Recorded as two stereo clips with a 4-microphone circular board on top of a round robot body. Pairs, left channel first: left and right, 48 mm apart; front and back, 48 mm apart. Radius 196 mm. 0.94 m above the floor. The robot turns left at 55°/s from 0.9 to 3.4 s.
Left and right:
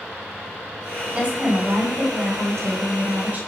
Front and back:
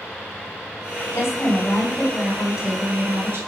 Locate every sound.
1.1 s a woman speaking: 20° right, 3.5 m; by 3.4 s 145° right, 3.5 m